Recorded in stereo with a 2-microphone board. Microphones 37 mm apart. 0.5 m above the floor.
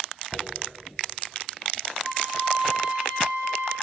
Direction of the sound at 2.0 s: 40° right (ahead or behind).